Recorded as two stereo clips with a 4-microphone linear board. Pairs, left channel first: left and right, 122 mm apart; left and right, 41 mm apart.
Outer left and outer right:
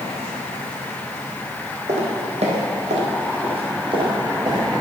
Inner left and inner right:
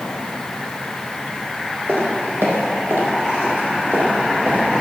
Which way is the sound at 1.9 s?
60° right (ahead or behind).